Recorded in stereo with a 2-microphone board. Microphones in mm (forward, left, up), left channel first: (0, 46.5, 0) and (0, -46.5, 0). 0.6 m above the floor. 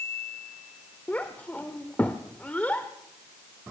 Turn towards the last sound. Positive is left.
turn(degrees=15)  # may be behind; listen again after turning